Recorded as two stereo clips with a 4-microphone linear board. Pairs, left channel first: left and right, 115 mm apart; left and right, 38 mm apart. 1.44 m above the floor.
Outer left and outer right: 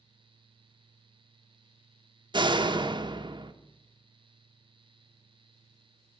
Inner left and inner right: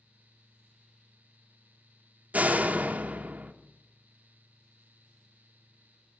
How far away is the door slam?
About 0.8 m.